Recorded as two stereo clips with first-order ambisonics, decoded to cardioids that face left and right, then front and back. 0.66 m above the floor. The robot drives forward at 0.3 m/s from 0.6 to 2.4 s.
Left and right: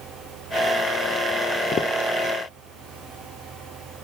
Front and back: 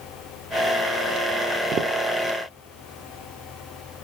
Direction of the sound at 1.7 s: 140° left.